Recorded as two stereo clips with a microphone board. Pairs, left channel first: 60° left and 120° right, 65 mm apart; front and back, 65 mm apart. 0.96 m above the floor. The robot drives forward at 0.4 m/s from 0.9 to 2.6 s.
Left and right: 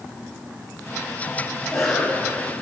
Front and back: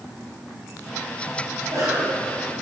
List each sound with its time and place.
1.6 s a cough: 150° left, 7 m; by 2.5 s 155° left, 7 m